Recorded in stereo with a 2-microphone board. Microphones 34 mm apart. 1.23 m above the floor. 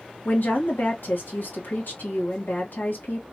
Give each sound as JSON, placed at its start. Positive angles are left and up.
{"t": 0.2, "sound": "a woman speaking", "side_deg": 70, "distance_m": 1.7}